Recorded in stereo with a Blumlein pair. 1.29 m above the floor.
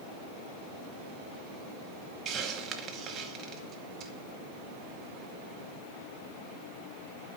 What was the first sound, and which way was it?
A hiss, 25° right.